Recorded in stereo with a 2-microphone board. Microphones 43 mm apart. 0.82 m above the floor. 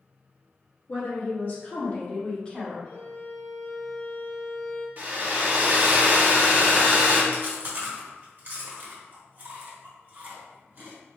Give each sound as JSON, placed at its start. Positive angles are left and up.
{"t": 0.9, "sound": "a woman speaking", "side_deg": 50, "distance_m": 1.5}
{"t": 2.9, "sound": "a violin", "side_deg": 50, "distance_m": 1.9}
{"t": 5.0, "sound": "a hair dryer", "side_deg": -45, "distance_m": 0.9}
{"t": 7.3, "sound": "chewing", "side_deg": -45, "distance_m": 1.1}